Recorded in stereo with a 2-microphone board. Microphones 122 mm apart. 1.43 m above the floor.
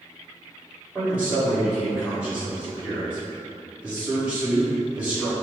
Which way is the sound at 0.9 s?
10° right (ahead or behind).